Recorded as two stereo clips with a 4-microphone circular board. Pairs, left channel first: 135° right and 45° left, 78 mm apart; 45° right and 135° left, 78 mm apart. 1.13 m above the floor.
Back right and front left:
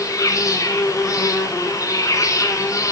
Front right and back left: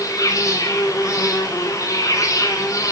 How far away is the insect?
About 2.5 m.